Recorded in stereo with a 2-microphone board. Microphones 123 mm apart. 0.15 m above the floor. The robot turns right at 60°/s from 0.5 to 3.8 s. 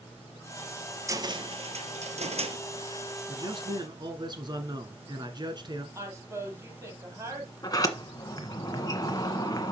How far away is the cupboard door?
About 1.1 m.